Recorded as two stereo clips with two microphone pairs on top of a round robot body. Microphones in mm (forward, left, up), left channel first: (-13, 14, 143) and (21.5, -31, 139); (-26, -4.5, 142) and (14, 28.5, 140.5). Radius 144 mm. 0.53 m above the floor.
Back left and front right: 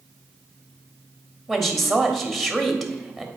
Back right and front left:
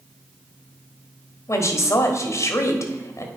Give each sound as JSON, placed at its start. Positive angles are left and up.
{"t": 1.5, "sound": "a woman speaking", "azimuth_deg": -140, "distance_m": 1.5}